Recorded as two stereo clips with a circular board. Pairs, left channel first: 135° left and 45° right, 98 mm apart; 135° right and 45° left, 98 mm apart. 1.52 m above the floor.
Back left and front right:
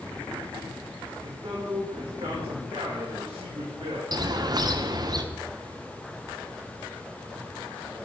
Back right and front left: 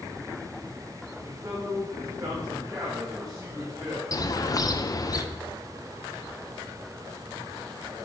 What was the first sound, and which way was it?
A man speaking, 15° right.